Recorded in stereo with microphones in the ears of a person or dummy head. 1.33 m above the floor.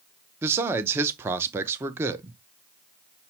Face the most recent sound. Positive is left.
turn(degrees=-15)  # may be behind; listen again after turning